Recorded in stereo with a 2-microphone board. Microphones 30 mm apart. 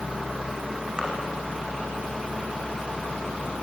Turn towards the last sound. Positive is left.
turn(degrees=-25)  # may be behind; listen again after turning